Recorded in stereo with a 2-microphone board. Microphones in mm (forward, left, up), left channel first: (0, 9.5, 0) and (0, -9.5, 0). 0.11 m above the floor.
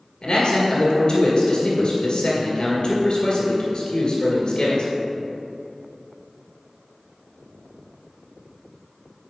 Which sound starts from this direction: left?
A man speaking, at 0.2 s.